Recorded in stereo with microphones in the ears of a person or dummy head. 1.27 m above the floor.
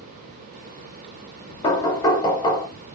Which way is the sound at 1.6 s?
20° left (ahead or behind).